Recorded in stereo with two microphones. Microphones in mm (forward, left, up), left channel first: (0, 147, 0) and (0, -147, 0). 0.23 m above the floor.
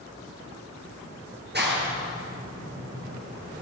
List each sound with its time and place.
1.5 s a clap: 35° right (ahead or behind), 3.5 m